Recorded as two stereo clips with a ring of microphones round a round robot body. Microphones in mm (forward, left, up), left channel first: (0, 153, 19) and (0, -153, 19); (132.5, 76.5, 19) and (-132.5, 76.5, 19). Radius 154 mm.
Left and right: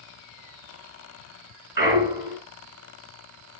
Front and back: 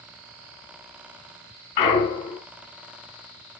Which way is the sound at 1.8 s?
10° right.